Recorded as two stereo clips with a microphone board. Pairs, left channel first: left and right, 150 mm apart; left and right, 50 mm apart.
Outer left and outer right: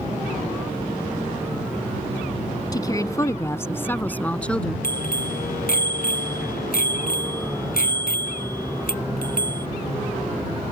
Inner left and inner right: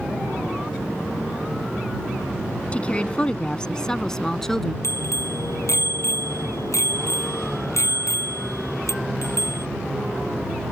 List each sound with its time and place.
2.7 s a woman speaking: 25° left (ahead or behind); by 4.7 s 5° left (ahead or behind)
4.8 s a bicycle bell: 75° left (ahead or behind)